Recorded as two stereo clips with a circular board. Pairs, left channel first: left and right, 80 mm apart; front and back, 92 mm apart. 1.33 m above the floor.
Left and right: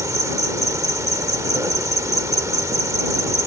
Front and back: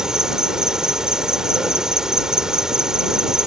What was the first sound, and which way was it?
An insect, 100° right.